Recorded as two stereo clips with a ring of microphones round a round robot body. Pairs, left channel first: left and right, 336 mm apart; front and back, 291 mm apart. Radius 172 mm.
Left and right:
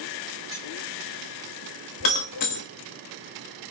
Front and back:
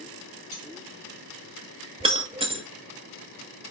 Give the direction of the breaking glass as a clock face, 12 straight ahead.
8 o'clock.